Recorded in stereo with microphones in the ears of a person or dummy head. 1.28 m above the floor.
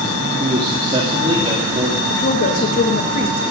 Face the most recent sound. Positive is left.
turn(degrees=45)  # may be behind; listen again after turning